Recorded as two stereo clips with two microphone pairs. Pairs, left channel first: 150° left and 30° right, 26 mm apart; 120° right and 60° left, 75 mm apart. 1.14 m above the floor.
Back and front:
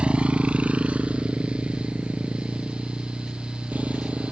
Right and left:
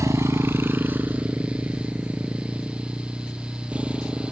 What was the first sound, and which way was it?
A motorcycle, 10° left.